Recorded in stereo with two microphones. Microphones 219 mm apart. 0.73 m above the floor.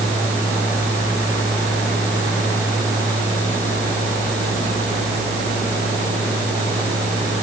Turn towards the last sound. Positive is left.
No sound to turn to.